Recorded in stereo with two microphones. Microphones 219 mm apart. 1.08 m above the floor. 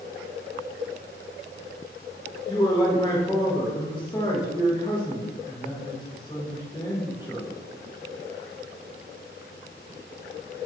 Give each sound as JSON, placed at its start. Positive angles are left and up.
{"t": 2.5, "sound": "a man speaking", "side_deg": 20, "distance_m": 1.3}